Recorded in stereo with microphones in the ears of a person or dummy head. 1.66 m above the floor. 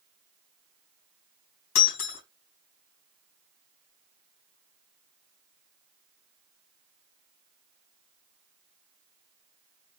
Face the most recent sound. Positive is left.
turn(degrees=70)  # may be behind; listen again after turning